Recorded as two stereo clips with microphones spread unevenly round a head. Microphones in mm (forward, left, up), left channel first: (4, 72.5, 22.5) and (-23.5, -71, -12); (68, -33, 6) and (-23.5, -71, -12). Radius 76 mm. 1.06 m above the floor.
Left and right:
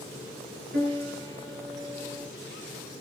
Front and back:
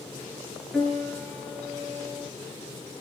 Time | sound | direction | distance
0.7 | a piano | 75° right | 6.5 m